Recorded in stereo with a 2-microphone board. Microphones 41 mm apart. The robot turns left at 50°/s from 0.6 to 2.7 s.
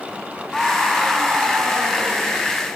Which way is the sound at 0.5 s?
10° left.